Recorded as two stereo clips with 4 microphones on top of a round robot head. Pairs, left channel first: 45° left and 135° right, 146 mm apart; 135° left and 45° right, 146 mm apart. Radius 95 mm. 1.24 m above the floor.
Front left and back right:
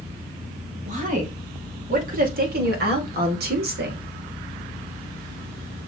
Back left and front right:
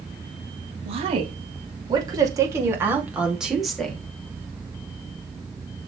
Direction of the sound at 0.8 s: 90° right.